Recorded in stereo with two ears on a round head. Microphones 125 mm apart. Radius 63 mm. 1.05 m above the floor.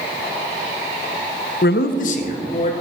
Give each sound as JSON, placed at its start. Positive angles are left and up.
{"t": 1.6, "sound": "a man speaking", "side_deg": 75, "distance_m": 0.5}